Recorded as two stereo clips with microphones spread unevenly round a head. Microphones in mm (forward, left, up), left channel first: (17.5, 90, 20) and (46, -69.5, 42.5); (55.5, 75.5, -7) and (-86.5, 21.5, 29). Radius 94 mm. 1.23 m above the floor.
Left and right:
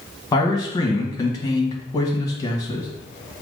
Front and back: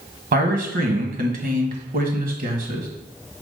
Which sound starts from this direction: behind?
A man speaking, at 0.3 s.